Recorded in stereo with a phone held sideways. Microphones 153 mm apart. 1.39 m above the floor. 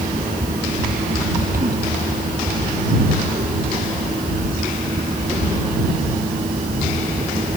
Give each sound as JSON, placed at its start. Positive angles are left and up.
{"t": 0.0, "sound": "a fan", "side_deg": -70}